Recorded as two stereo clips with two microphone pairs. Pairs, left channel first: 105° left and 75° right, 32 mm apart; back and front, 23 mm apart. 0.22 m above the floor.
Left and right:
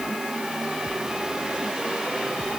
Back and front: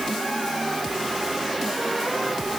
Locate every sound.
Only background noise.